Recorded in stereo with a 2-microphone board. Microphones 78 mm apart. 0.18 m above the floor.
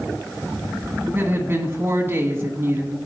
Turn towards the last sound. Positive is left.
turn(degrees=-30)  # may be behind; listen again after turning